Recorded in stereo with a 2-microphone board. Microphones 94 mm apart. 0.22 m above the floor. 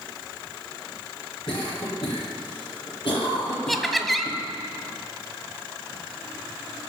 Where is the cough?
50° left (ahead or behind), 6 m.